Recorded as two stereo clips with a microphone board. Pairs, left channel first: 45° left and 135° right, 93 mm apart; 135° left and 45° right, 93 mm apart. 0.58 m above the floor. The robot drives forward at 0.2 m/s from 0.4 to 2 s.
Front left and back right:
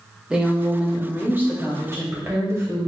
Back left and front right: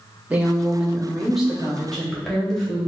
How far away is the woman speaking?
About 0.7 m.